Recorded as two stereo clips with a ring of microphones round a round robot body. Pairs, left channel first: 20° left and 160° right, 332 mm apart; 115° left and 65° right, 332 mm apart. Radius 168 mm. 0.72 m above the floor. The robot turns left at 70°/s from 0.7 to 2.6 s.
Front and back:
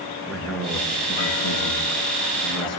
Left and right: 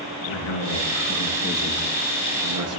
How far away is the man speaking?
About 7.5 m.